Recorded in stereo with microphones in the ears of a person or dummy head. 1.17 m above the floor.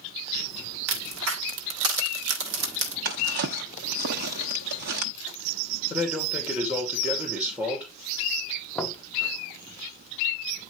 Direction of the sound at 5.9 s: 10° right (ahead or behind).